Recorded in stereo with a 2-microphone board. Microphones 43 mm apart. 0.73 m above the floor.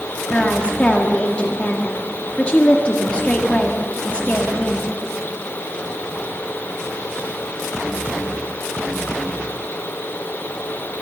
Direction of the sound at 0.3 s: 30° left (ahead or behind).